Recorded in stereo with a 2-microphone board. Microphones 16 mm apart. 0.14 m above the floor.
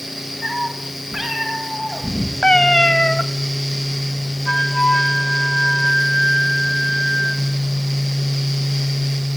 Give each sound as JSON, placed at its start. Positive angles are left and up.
{"t": 0.4, "sound": "a cat meowing", "side_deg": -10, "distance_m": 5.5}
{"t": 2.4, "sound": "a cat meowing", "side_deg": 55, "distance_m": 0.7}
{"t": 4.5, "sound": "a flute", "side_deg": 35, "distance_m": 1.2}